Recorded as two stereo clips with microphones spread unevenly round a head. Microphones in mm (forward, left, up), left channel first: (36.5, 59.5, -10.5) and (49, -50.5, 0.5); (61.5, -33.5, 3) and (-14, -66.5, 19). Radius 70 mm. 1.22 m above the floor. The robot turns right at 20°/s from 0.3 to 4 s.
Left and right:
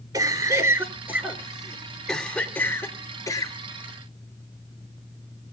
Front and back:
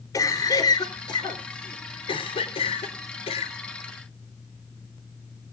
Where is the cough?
25° right, 3.5 m; by 3.6 s 40° left, 3.5 m.